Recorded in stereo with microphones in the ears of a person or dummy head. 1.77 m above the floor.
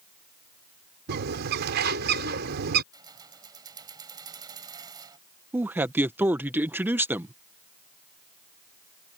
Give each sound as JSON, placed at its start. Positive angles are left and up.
{"t": 1.1, "sound": "a bird", "side_deg": -55}
{"t": 2.9, "sound": "keys jangling", "side_deg": -20}
{"t": 5.5, "sound": "a man speaking", "side_deg": -5}